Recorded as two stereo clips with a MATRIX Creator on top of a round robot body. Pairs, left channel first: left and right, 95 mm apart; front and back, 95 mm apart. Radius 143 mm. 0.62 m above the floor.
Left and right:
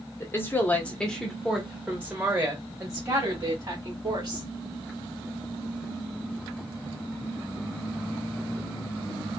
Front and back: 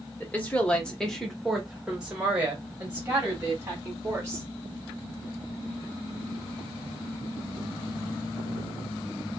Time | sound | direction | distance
0.2 | a woman speaking | 55° left | 1.2 m